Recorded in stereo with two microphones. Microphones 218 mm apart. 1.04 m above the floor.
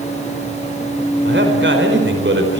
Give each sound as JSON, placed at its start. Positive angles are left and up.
{"t": 1.2, "sound": "a man speaking", "side_deg": -55, "distance_m": 4.5}